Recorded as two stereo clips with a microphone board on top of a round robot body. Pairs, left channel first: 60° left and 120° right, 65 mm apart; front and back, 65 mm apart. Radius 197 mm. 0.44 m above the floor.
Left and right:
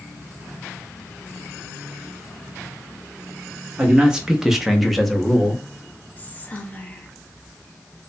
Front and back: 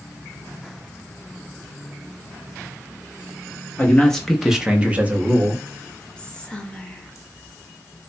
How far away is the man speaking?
About 0.8 m.